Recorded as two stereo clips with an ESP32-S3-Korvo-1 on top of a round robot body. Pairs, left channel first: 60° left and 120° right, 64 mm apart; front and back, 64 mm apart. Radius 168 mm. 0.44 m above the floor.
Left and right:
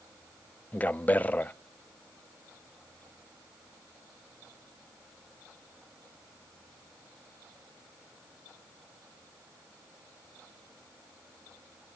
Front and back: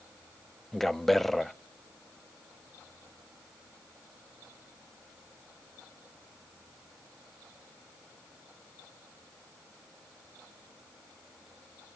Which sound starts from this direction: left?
A man speaking, at 0.7 s.